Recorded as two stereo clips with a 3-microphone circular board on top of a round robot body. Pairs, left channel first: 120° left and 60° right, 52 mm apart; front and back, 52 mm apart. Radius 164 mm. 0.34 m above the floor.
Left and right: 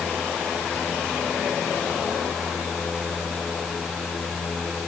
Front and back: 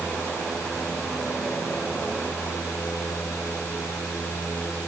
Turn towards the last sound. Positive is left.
No sound to turn to.